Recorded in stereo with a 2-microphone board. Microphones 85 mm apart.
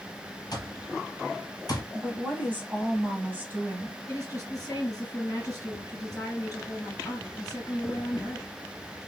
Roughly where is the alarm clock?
Left.